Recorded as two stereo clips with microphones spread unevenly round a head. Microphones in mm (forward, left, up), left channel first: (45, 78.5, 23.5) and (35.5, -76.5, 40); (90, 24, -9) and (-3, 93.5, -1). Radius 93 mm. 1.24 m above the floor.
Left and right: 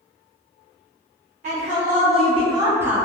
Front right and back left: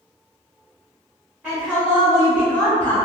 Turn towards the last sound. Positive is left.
turn(degrees=0)